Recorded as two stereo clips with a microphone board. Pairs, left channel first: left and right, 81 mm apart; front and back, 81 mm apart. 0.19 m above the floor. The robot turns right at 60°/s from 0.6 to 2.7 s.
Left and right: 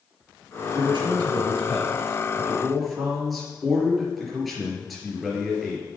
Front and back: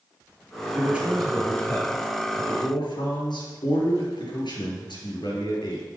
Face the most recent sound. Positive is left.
turn(degrees=0)